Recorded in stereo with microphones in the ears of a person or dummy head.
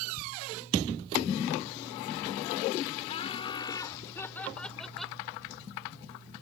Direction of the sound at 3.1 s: 40° left (ahead or behind).